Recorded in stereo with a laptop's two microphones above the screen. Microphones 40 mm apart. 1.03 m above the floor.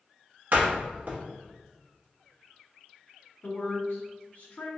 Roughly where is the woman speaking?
Left.